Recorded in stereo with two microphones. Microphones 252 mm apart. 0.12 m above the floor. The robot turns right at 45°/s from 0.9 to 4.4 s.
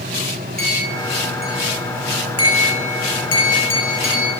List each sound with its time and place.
0.6 s a clink: 5° left (ahead or behind), 5.5 m; by 4.3 s 25° left (ahead or behind), 5.5 m